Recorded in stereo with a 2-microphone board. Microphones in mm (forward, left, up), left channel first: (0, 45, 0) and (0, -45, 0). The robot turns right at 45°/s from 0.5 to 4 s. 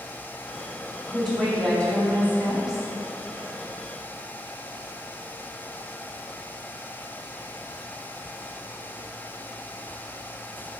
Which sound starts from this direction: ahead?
A woman speaking, at 1.1 s.